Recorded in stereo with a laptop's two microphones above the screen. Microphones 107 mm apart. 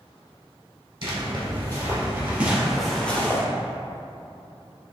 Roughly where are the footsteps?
Right.